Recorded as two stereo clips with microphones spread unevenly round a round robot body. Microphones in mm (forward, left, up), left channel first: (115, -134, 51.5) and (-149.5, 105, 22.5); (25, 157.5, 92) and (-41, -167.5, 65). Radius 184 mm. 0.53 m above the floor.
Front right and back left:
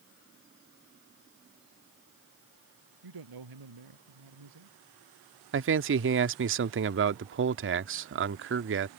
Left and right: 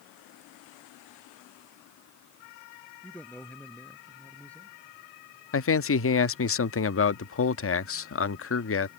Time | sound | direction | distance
3.0 | a man speaking | 165° left | ?
5.5 | a man speaking | 110° left | ?